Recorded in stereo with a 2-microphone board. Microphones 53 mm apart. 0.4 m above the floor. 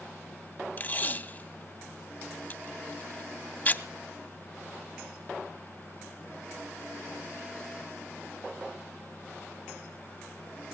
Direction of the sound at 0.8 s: 35° left (ahead or behind).